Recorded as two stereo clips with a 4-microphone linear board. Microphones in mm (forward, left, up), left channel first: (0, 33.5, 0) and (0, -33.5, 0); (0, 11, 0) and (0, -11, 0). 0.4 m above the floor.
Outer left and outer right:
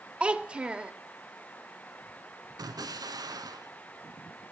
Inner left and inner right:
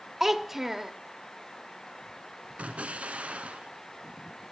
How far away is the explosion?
About 0.9 m.